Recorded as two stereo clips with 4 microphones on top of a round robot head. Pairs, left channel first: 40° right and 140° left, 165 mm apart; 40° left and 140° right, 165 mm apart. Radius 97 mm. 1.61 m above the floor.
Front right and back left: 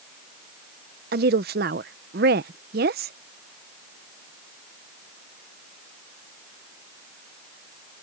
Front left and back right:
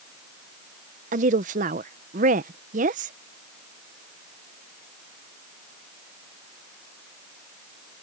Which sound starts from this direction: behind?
A woman speaking, at 1.1 s.